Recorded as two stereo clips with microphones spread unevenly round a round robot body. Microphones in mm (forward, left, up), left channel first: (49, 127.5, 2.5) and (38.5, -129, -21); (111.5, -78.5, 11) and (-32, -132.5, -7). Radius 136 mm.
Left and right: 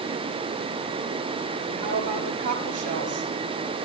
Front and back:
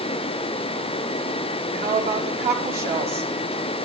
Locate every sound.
1.7 s a woman speaking: 155° right, 7.5 m